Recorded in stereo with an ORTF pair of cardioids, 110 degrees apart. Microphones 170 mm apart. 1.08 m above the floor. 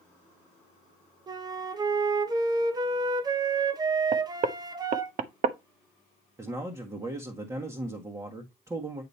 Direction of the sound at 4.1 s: 50° right.